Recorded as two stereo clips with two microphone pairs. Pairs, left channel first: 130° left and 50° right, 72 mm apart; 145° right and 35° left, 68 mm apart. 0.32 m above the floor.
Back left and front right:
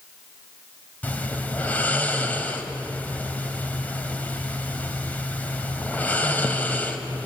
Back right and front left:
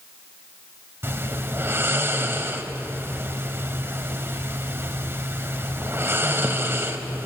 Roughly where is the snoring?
Left.